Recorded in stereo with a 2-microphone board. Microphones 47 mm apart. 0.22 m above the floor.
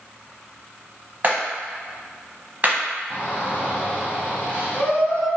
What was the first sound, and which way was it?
A clap, 40° right (ahead or behind).